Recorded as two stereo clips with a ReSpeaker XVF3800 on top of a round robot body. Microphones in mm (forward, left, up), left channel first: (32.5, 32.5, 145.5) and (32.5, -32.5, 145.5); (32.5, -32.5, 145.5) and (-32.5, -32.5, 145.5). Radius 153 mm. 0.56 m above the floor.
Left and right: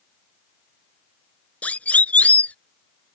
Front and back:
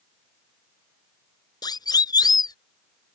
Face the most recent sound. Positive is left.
turn(degrees=20)